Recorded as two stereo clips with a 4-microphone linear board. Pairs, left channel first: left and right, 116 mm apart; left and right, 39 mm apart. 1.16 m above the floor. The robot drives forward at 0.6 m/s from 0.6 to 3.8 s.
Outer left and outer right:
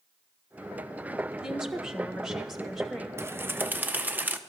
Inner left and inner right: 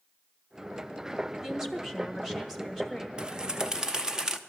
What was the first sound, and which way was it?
A woman speaking, 5° right (ahead or behind).